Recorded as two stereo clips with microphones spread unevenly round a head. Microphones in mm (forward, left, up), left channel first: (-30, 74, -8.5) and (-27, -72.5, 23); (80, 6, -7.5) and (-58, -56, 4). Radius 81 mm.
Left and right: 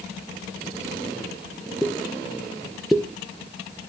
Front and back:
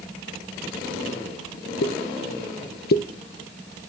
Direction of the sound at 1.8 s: Straight ahead.